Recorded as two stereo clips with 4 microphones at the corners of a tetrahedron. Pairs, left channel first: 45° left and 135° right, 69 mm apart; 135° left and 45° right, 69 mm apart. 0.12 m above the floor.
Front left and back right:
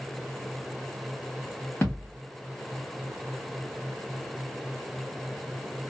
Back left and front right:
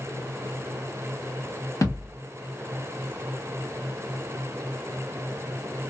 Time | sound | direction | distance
1.8 | a thud | 100° left | 1.8 m